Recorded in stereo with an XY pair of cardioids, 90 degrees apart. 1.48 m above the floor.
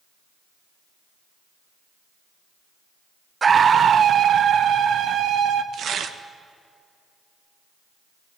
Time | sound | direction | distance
3.4 | a scream | 40° right | 0.7 m
5.7 | tearing paper | 65° right | 1.5 m